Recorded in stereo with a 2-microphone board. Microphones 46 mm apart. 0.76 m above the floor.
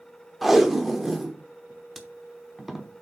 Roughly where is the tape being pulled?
Centre.